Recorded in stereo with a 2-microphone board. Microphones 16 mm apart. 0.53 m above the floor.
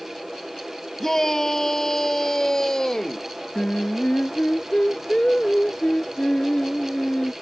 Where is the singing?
90° left.